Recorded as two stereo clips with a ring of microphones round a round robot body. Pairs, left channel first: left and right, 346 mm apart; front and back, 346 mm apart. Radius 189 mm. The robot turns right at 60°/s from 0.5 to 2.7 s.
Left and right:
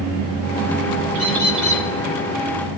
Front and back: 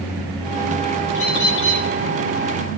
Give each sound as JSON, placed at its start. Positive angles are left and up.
{"t": 1.1, "sound": "a bird", "azimuth_deg": -60, "distance_m": 2.0}